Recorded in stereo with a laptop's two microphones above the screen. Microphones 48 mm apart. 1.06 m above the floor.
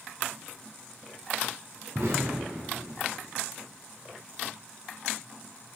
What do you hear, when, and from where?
1.9 s an explosion: 70° right (ahead or behind), 2.5 m